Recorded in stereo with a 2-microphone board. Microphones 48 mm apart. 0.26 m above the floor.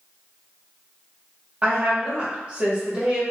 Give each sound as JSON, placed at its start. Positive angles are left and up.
{"t": 1.6, "sound": "a woman speaking", "side_deg": -30, "distance_m": 1.4}